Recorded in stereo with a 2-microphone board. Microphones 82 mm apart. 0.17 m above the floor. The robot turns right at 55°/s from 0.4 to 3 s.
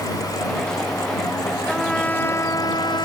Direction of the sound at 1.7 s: Straight ahead.